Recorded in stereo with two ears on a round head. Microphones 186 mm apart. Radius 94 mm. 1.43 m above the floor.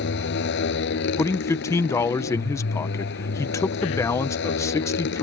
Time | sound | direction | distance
0.0 | a motorcycle | 65° left (ahead or behind) | ?
1.2 | a man speaking | 15° left (ahead or behind) | ?